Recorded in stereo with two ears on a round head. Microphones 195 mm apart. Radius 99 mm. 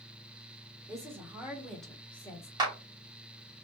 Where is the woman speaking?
15° right (ahead or behind), 2.0 m; by 2.5 s 15° left (ahead or behind), 2 m.